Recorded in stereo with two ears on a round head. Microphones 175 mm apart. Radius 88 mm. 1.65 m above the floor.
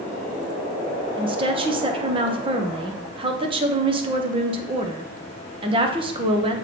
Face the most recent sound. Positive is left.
turn(degrees=-25)  # may be behind; listen again after turning